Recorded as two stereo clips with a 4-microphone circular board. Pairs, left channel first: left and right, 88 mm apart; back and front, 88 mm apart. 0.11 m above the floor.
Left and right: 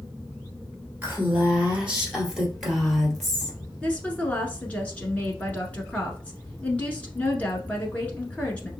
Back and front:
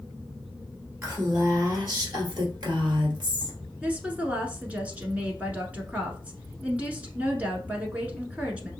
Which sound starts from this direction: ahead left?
A woman speaking, at 3.8 s.